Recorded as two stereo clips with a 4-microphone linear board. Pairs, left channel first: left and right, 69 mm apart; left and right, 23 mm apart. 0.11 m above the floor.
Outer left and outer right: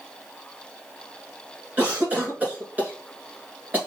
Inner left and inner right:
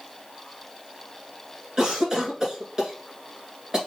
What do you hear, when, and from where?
1.8 s a cough: 25° right (ahead or behind), 1.3 m